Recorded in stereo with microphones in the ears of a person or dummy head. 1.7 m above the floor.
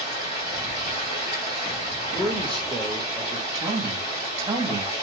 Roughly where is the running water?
Left.